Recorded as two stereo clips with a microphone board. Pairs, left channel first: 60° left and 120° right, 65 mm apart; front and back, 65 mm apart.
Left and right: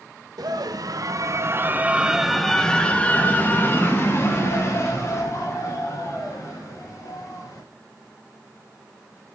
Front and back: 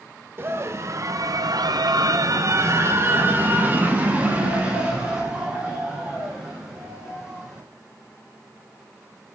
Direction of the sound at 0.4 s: 130° right.